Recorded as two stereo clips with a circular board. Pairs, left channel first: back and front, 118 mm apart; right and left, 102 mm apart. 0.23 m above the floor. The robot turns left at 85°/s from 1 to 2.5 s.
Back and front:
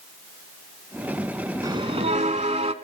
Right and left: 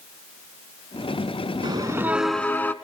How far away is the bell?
About 0.9 m.